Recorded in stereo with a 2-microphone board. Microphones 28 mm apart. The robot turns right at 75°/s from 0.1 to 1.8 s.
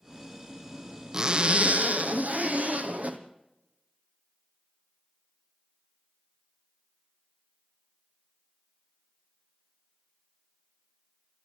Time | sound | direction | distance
1.1 | a zipper | 155° right | 1.4 m